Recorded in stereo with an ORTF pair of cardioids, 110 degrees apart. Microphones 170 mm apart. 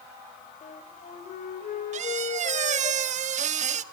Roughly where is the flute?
Ahead left.